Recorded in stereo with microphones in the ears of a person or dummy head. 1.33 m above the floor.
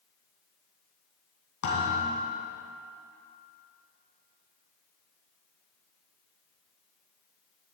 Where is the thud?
70° left (ahead or behind), 4 m.